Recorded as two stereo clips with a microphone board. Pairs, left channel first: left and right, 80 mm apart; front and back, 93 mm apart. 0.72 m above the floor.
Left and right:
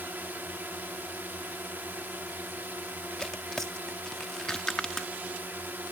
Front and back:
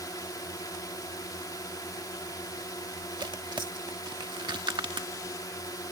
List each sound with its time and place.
0.0 s a drone: 30° right
3.2 s tearing paper: 170° left